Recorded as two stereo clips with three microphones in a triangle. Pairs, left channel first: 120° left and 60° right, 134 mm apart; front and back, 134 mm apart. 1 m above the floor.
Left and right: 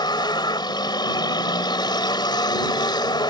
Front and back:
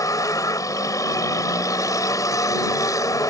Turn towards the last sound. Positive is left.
turn(degrees=65)